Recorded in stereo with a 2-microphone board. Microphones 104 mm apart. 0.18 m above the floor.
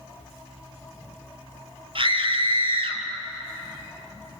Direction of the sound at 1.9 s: 55° right (ahead or behind).